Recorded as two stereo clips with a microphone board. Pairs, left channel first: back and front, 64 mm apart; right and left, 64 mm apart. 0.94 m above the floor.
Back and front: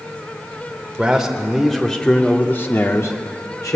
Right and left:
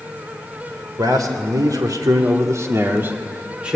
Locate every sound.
1.0 s a man speaking: 80° left, 3.5 m; by 3.8 s 165° left, 3 m